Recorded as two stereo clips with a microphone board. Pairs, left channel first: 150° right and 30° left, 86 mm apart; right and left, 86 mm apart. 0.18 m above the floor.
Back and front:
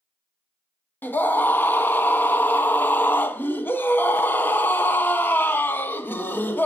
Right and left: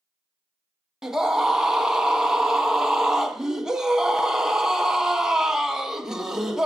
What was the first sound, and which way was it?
A scream, 170° left.